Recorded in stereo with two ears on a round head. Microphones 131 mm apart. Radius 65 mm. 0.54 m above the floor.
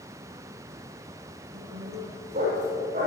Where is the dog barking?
50° right (ahead or behind), 9.5 m.